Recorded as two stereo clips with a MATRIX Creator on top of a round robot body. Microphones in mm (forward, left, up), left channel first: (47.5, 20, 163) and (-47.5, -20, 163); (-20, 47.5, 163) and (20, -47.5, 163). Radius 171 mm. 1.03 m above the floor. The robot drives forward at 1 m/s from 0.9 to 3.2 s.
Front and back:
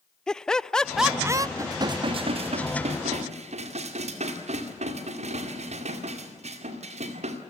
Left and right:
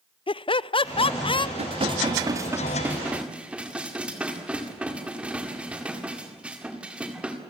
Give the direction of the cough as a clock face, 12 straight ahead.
No cough in this recording.